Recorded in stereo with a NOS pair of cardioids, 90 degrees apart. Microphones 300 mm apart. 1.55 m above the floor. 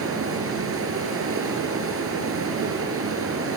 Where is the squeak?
No squeak in this recording.